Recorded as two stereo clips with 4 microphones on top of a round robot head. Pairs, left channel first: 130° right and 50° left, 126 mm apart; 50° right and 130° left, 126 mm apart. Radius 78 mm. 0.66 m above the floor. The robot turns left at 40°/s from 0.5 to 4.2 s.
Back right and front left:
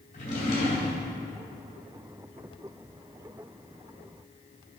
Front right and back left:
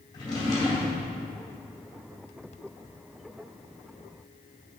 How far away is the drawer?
About 2.5 m.